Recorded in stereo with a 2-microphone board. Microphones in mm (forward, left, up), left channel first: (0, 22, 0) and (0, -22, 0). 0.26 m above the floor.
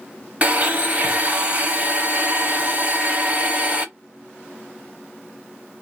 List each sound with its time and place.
0.4 s a blender: 30° right (ahead or behind), 0.9 m